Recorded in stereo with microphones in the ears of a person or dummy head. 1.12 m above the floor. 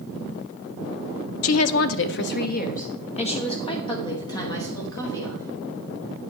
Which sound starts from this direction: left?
A woman speaking, at 1.4 s.